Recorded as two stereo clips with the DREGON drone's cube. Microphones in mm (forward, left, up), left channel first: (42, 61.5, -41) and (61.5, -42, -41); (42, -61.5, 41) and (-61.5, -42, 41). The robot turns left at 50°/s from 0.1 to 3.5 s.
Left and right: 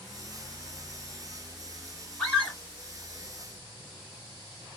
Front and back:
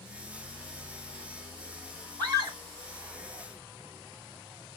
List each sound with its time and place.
2.2 s a scream: straight behind, 2.0 m; by 2.6 s 160° left, 2.0 m